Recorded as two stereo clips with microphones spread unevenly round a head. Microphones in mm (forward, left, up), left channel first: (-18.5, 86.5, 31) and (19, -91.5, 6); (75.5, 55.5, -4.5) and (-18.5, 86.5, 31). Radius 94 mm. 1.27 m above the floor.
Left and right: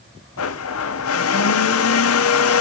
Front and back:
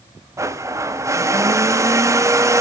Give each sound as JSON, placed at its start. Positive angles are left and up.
{"t": 0.4, "sound": "a blender", "azimuth_deg": 95, "distance_m": 0.7}